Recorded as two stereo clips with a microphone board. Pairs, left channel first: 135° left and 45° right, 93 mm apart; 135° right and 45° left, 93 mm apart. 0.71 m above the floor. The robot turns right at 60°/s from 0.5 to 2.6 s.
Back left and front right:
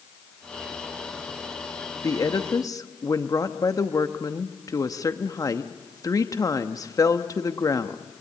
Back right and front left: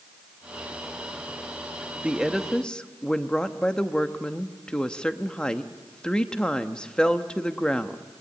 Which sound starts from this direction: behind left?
A woman speaking, at 2.0 s.